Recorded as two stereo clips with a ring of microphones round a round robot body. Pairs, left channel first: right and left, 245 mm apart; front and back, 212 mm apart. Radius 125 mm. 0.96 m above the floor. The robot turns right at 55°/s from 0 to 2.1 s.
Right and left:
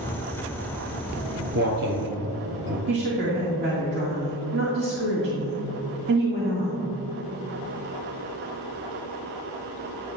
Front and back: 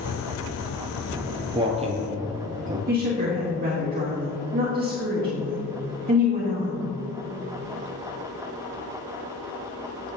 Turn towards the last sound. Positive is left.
turn(degrees=135)